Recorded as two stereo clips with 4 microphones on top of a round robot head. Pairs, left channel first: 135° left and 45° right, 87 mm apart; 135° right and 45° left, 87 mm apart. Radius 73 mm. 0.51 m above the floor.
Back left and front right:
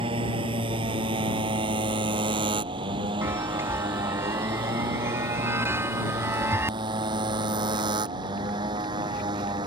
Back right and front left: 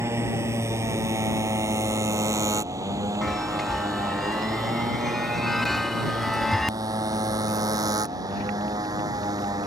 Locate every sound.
0.0 s a motorcycle: 15° right; by 9.7 s 5° right
3.2 s a chime: 50° right